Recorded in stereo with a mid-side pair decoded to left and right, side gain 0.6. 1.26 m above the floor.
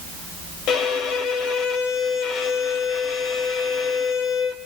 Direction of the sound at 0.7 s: 65° left.